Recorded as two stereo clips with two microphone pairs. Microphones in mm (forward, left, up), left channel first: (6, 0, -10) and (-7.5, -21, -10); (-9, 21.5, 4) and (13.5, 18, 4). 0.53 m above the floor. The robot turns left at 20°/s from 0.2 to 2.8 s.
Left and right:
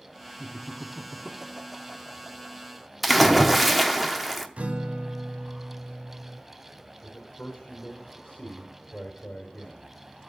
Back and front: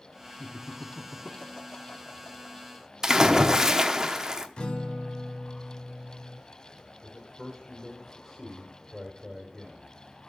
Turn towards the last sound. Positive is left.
turn(degrees=90)